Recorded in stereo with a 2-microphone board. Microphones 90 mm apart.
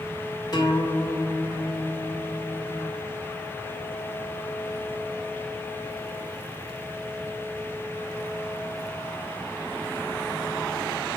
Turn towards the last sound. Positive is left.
turn(degrees=50)  # may be behind; listen again after turning